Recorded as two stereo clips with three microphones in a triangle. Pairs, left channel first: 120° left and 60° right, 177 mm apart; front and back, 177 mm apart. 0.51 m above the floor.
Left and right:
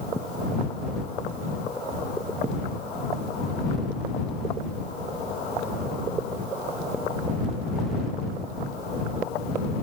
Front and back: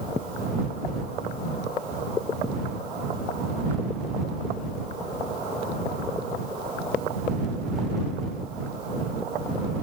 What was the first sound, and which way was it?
Only background noise.